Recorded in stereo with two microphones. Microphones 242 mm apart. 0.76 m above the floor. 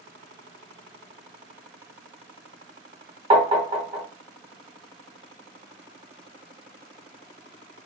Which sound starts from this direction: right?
Tapping, at 3.3 s.